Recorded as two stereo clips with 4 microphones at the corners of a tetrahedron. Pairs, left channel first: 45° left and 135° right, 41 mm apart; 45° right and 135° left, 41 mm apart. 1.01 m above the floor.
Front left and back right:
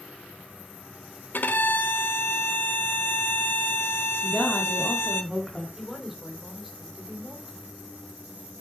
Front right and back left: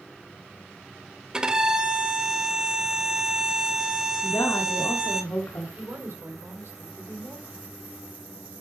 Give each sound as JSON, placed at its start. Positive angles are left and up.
{"t": 1.3, "sound": "a violin", "azimuth_deg": 65, "distance_m": 0.9}
{"t": 4.2, "sound": "a woman speaking", "azimuth_deg": -40, "distance_m": 2.5}
{"t": 5.8, "sound": "a woman speaking", "azimuth_deg": 135, "distance_m": 3.0}